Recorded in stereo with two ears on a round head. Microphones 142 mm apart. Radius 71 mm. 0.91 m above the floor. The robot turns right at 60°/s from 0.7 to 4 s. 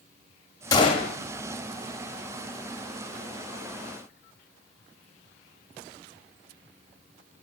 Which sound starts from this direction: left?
A gunshot, at 0.7 s.